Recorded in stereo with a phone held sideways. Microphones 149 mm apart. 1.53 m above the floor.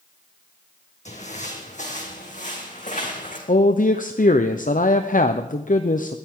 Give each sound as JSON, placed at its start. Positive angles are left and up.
{"t": 1.1, "sound": "footsteps", "side_deg": 55, "distance_m": 3.5}
{"t": 3.5, "sound": "a man speaking", "side_deg": 65, "distance_m": 0.7}